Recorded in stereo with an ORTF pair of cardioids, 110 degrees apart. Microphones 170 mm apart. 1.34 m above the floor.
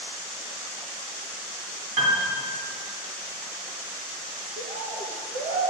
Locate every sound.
2.0 s a piano: 45° right, 2.5 m
4.6 s a bird: 50° right, 1.2 m